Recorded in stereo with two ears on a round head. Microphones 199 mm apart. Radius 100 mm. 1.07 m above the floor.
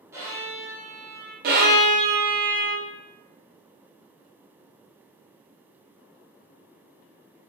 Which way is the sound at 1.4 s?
40° right (ahead or behind).